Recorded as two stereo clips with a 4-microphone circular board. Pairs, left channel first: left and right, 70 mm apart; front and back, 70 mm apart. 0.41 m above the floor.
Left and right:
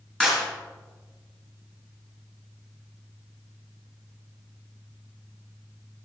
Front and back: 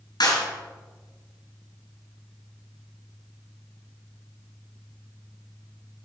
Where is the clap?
10° left, 4 m.